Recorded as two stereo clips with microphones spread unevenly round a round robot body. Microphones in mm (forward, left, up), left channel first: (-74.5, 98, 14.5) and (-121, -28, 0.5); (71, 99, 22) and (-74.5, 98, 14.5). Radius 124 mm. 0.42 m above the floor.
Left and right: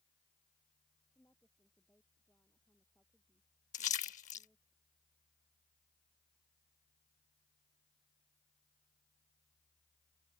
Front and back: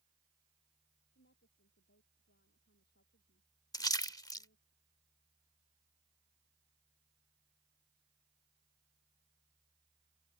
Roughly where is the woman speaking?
Ahead.